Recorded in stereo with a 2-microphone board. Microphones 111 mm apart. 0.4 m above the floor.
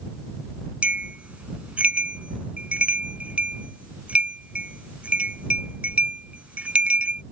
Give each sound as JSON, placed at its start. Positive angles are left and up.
{"t": 0.8, "sound": "a bell", "side_deg": -10}